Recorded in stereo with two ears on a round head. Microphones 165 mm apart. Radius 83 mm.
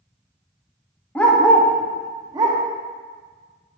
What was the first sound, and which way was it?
A dog barking, 10° left (ahead or behind).